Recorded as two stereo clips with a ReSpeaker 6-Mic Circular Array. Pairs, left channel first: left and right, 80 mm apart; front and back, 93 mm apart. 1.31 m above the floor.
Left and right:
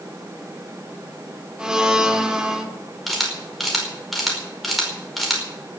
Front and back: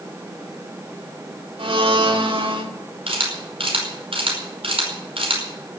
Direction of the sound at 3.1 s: Straight behind.